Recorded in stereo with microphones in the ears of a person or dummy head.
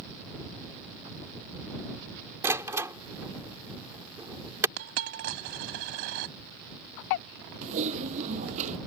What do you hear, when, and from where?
2.4 s a door slam: 15° right (ahead or behind)
4.8 s a dropped coin: 50° right (ahead or behind)
7.6 s typing on a keyboard: 40° right (ahead or behind)